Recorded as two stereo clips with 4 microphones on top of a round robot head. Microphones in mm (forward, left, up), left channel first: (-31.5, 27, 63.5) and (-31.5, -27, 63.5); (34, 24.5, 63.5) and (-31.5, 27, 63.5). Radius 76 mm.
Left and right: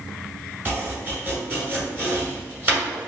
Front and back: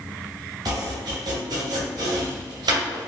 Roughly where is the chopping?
Behind right.